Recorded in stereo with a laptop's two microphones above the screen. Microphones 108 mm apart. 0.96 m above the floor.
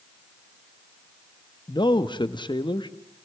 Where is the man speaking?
45° left (ahead or behind), 1.0 m.